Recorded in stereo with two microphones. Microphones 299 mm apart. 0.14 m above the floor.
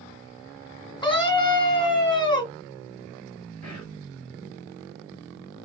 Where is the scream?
15° left (ahead or behind), 1.1 m.